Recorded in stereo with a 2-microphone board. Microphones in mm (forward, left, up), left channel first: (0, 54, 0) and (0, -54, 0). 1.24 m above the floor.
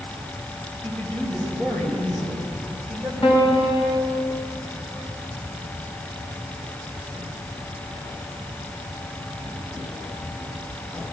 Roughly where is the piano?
Left.